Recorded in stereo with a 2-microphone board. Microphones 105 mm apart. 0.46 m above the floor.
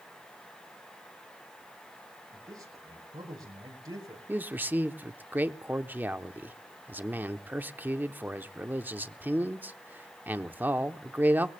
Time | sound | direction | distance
2.3 | a man speaking | 35° right (ahead or behind) | 7.5 m
4.3 | a man speaking | 20° right (ahead or behind) | 0.7 m